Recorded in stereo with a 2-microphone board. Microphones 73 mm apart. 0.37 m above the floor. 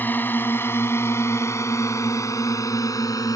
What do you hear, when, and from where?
0.0 s a drone: 25° left (ahead or behind); by 3.4 s 55° left (ahead or behind)